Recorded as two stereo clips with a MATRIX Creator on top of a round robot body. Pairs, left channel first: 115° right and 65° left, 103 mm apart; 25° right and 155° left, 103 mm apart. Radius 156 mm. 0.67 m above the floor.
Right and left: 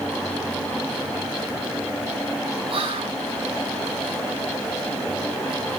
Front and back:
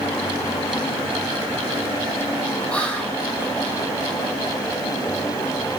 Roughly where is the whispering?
Ahead left.